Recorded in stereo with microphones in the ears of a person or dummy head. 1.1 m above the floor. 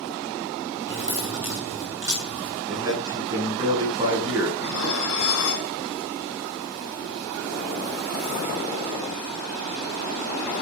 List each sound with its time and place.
0.9 s keys jangling: 15° right (ahead or behind), 9 m
2.7 s a man speaking: 25° right (ahead or behind), 9.5 m
4.6 s dishes clattering: 75° left (ahead or behind), 6 m